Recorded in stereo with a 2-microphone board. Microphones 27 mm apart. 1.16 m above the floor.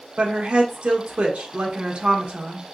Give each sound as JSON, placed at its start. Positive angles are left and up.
{"t": 0.2, "sound": "a woman speaking", "side_deg": -55, "distance_m": 1.0}